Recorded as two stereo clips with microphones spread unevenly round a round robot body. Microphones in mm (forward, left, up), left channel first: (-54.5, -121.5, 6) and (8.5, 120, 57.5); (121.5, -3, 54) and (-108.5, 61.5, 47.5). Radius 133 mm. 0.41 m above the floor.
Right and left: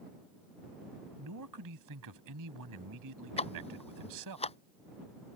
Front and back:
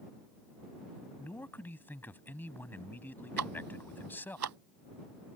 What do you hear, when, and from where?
1.2 s a man speaking: 65° left
3.4 s ticking: 170° right